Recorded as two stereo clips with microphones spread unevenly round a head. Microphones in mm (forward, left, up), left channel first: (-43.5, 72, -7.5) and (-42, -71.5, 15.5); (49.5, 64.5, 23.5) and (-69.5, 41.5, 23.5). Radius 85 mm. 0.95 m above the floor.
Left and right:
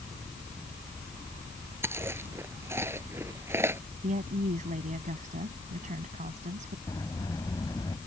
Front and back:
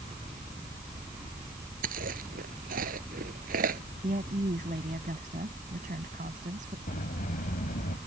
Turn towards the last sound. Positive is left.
turn(degrees=15)